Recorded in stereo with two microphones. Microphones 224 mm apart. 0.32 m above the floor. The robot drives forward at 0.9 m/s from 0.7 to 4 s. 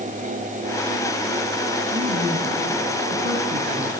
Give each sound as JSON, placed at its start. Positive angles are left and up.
{"t": 1.9, "sound": "a woman speaking", "side_deg": -65, "distance_m": 3.5}